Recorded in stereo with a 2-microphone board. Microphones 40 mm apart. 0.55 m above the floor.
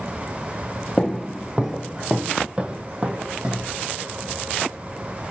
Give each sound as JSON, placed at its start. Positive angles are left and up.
{"t": 1.0, "sound": "footsteps", "side_deg": 5, "distance_m": 0.6}